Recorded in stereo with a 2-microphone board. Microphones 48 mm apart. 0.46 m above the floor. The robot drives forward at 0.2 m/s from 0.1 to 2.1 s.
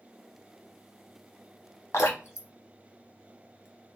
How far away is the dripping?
About 0.9 m.